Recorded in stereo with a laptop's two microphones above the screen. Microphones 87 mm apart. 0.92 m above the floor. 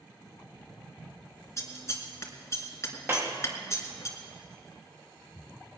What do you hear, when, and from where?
1.6 s scissors: 35° left (ahead or behind), 1.8 m
3.1 s a clap: 30° right (ahead or behind), 1.1 m